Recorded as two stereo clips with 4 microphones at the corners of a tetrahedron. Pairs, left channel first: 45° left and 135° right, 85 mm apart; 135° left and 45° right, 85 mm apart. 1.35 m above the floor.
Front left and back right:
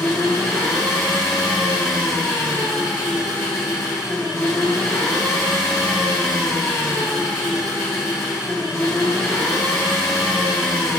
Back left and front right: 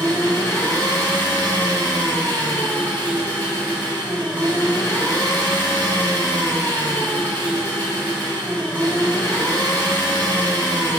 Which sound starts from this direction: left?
An engine running, at 0.0 s.